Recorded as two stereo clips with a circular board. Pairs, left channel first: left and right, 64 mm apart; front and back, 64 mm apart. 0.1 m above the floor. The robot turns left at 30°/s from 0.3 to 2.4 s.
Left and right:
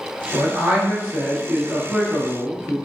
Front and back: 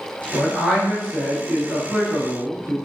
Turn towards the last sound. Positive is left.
turn(degrees=-140)